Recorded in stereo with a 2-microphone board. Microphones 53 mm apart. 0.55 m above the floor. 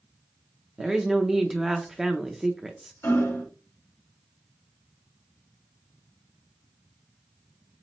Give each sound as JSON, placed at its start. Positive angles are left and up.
{"t": 0.8, "sound": "a woman speaking", "side_deg": -10, "distance_m": 0.6}
{"t": 3.0, "sound": "hammering", "side_deg": 65, "distance_m": 2.5}